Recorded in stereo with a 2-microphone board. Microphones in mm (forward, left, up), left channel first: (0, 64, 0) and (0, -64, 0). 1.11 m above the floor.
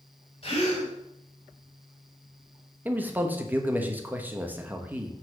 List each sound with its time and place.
0.4 s a gasp: 45° left (ahead or behind), 3 m
2.9 s a man speaking: 15° right (ahead or behind), 1.0 m